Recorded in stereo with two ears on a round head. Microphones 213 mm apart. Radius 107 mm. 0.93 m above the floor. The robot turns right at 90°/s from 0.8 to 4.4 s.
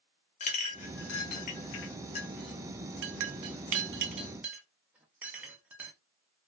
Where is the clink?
30° left (ahead or behind), 0.5 m; by 5.9 s 5° right (ahead or behind), 0.5 m.